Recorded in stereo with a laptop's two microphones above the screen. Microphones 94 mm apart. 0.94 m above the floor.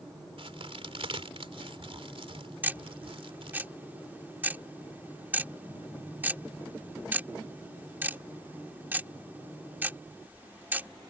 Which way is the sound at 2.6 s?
20° right (ahead or behind).